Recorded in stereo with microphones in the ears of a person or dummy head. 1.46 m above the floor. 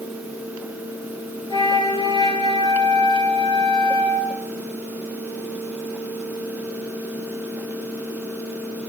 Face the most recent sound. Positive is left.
turn(degrees=30)  # may be behind; listen again after turning